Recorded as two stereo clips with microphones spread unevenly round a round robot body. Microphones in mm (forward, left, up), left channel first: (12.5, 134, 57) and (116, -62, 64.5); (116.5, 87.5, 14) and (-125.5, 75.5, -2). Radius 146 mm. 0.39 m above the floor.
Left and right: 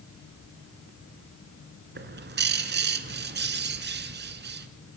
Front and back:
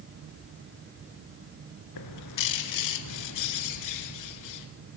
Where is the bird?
20° right, 1.7 m.